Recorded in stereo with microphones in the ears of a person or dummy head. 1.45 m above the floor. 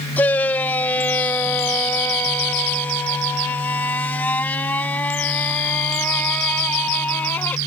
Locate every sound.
0.2 s a shout: 10° left (ahead or behind)